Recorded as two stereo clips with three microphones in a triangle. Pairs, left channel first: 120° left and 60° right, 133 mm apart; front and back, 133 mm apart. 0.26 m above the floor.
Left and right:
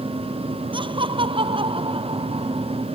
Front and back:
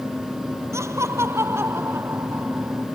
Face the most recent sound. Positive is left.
turn(degrees=-105)